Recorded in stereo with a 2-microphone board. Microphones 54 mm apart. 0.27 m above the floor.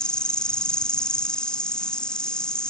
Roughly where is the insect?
Centre.